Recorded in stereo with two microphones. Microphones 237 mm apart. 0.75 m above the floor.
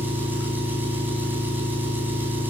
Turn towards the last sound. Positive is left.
turn(degrees=-10)  # may be behind; listen again after turning